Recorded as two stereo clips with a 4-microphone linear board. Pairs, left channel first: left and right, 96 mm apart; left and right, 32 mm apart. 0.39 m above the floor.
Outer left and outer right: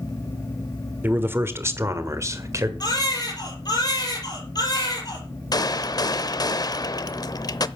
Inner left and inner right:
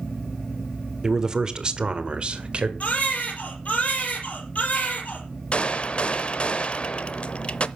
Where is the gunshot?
40° left (ahead or behind), 0.6 m.